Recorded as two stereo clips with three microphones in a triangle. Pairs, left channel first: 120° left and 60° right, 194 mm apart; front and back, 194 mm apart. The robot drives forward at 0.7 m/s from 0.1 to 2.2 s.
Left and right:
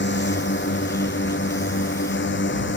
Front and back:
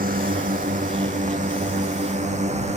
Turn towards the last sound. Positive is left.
turn(degrees=125)